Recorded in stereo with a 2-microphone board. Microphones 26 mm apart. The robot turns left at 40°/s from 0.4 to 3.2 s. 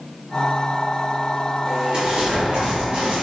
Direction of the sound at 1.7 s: 45° right.